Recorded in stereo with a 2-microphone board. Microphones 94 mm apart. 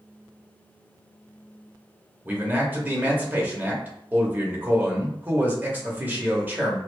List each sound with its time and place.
2.2 s a man speaking: 20° right (ahead or behind), 0.9 m